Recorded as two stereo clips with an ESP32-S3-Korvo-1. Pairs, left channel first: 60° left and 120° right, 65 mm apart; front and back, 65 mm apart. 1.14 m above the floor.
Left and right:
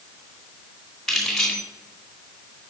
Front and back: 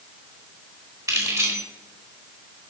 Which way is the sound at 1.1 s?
150° left.